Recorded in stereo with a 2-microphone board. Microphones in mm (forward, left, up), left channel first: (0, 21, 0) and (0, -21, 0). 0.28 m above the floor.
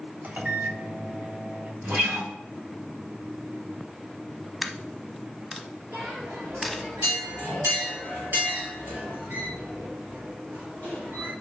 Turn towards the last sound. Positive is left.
turn(degrees=-50)  # may be behind; listen again after turning